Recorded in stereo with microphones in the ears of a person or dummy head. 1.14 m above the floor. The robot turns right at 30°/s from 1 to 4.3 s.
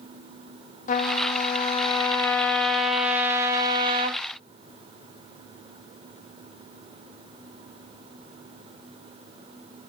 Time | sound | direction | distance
0.9 | a trumpet | 130° left | 0.6 m